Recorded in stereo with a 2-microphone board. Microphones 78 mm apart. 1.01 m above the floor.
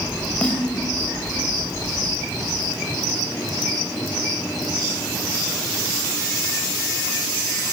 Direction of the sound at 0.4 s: 15° left (ahead or behind).